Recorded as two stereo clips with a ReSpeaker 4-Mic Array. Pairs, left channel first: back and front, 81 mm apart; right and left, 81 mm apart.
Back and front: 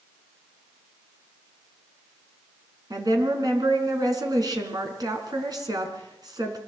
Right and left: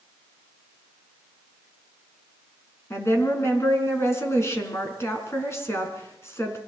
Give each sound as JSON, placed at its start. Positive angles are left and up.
{"t": 2.9, "sound": "a woman speaking", "azimuth_deg": -35, "distance_m": 4.5}